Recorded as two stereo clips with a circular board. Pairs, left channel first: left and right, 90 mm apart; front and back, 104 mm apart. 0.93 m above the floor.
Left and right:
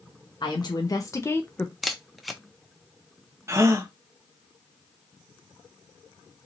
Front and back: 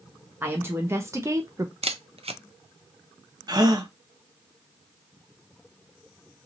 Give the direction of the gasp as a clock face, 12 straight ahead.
5 o'clock.